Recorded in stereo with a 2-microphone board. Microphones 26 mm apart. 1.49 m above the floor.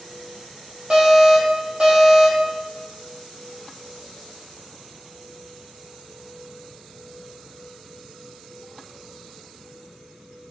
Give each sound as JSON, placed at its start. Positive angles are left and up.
{"t": 0.9, "sound": "an alarm", "side_deg": -35, "distance_m": 2.0}